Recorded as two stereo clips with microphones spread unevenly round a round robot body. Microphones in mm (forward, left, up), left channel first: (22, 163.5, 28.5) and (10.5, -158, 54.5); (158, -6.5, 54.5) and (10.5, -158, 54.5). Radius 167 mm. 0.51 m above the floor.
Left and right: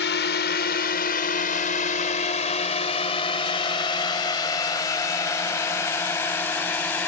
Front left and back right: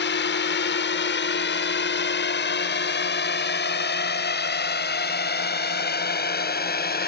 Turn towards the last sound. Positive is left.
turn(degrees=5)